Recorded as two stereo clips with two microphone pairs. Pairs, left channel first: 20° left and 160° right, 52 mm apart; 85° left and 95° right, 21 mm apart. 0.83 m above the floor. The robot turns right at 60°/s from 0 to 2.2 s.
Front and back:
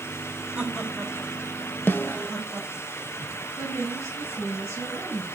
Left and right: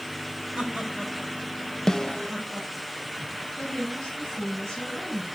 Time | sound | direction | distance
0.6 | laughter | 90° right | 5.5 m
1.9 | a snare drum | 30° left | 0.6 m
3.6 | a woman speaking | 20° left | 5.5 m